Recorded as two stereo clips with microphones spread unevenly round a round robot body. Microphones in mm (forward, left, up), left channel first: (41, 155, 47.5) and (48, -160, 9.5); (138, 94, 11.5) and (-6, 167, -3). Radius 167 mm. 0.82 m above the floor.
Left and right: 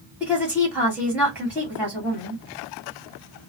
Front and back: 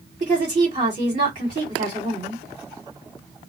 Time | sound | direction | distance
0.2 | a woman speaking | 170° right | 1.4 m